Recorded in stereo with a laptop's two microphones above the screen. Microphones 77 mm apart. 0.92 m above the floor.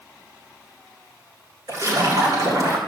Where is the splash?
50° right (ahead or behind), 4 m.